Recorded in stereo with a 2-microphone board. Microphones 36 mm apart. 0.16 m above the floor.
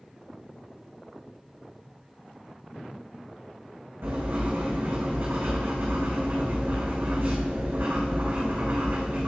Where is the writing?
80° right, 3 m.